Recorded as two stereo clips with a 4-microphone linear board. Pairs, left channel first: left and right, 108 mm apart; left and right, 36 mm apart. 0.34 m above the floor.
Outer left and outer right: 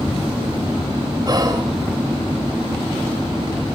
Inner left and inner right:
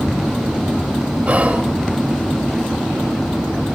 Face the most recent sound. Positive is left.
turn(degrees=-40)  # may be behind; listen again after turning